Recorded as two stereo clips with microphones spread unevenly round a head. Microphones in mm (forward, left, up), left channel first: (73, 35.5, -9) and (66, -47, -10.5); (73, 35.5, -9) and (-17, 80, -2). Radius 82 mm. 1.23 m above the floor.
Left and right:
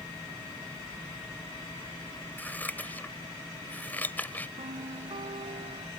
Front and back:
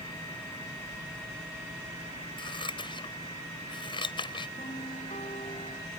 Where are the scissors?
15° left.